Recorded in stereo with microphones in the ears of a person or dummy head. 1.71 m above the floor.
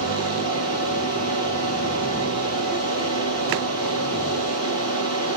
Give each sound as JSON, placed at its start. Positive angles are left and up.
{"t": 0.0, "sound": "a fan", "side_deg": 40, "distance_m": 6.0}